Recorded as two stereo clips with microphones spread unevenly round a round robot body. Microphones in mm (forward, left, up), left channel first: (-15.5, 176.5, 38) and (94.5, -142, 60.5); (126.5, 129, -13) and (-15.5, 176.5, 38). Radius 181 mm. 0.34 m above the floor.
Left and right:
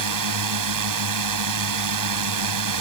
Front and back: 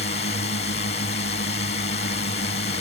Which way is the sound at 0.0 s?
50° right.